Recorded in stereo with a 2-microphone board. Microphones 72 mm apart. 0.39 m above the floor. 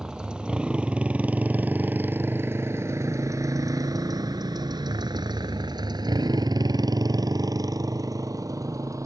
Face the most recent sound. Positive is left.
turn(degrees=-50)  # may be behind; listen again after turning